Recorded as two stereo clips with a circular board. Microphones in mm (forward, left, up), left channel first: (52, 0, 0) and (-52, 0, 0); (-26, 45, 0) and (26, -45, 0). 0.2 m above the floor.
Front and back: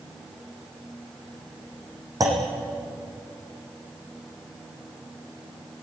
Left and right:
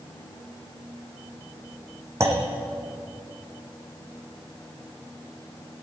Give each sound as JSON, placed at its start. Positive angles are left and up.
{"t": 2.2, "sound": "a clunk", "azimuth_deg": -125, "distance_m": 4.0}